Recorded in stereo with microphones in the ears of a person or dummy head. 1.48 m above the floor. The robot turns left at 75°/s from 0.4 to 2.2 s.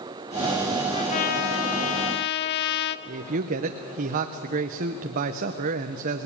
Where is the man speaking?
40° right (ahead or behind), 0.8 m.